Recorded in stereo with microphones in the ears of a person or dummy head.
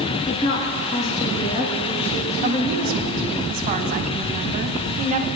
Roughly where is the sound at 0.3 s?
Left.